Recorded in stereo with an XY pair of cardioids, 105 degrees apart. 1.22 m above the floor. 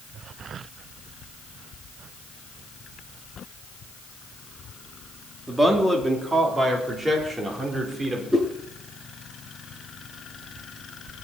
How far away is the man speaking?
About 3 m.